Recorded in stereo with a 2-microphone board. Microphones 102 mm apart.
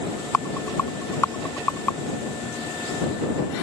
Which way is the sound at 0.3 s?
25° left (ahead or behind).